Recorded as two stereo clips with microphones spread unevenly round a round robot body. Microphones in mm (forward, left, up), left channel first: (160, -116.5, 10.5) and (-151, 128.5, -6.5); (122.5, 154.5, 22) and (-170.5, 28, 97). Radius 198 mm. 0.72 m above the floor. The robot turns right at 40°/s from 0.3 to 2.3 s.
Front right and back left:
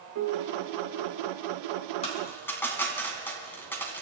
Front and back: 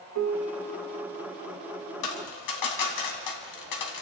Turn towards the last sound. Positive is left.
turn(degrees=45)